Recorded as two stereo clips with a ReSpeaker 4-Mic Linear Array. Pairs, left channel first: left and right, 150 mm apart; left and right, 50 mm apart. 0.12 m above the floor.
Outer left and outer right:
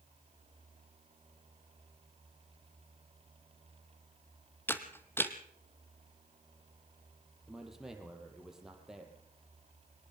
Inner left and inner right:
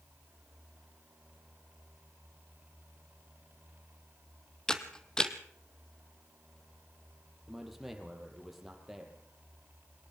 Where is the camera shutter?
15° left (ahead or behind), 1.2 m.